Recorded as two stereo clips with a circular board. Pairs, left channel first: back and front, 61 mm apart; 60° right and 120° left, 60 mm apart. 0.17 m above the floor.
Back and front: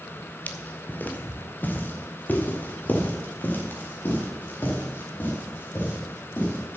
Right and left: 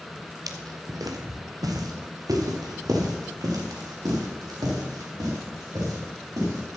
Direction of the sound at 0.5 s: 120° left.